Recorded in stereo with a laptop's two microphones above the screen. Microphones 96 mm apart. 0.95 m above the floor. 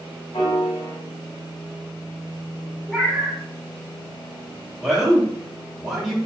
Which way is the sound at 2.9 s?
5° left (ahead or behind).